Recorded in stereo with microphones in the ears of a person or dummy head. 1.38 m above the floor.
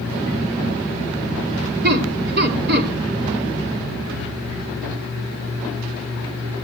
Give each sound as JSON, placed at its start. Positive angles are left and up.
{"t": 1.8, "sound": "laughter", "side_deg": -60, "distance_m": 2.5}